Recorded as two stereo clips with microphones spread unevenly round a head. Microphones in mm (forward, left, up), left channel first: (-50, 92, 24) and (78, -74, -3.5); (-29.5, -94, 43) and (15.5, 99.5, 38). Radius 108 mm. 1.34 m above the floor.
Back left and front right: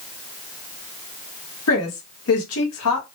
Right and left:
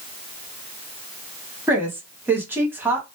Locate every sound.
1.7 s a woman speaking: 155° left, 1.1 m